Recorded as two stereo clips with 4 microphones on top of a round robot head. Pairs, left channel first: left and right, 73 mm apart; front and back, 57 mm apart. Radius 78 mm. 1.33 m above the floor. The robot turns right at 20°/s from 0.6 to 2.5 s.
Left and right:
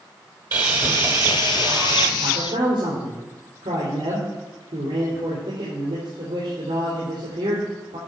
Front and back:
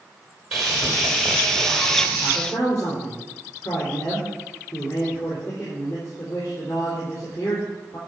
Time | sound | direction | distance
0.5 | sawing | 95° right | 1.1 m
2.2 | a man speaking | 70° right | 3.5 m